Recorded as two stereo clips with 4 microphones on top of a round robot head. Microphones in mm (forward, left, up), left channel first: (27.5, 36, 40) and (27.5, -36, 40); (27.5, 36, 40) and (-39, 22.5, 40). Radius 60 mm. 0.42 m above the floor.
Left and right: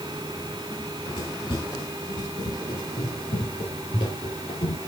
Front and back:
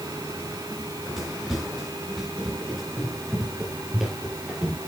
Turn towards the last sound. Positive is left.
turn(degrees=110)